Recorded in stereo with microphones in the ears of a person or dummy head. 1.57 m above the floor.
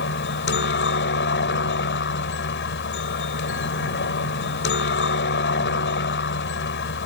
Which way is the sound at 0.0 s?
50° left (ahead or behind).